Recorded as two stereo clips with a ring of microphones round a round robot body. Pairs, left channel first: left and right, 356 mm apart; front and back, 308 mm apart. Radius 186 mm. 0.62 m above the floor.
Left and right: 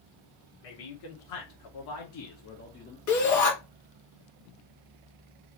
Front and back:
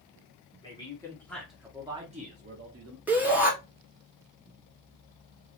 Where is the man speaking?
75° left, 1.4 m; by 3.0 s 155° left, 0.9 m.